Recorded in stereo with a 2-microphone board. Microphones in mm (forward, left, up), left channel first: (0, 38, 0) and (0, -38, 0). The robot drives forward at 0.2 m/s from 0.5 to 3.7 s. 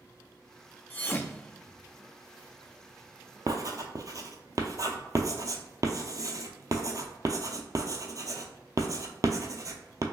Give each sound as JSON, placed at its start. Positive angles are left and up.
{"t": 0.9, "sound": "a thud", "side_deg": 20, "distance_m": 0.5}
{"t": 3.5, "sound": "writing", "side_deg": -55, "distance_m": 0.5}